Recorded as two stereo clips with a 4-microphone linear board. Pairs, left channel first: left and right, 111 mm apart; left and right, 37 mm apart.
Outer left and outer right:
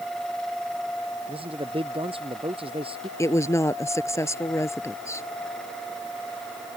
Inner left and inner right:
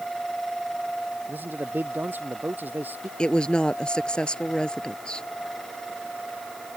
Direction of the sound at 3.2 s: 25° left (ahead or behind).